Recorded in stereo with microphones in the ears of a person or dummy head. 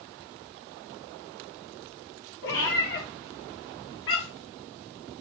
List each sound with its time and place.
2.4 s a cat meowing: 65° left (ahead or behind), 2.5 m